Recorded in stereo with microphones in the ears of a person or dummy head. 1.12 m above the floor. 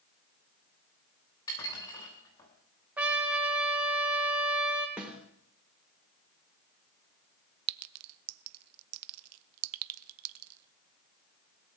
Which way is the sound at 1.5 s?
20° left (ahead or behind).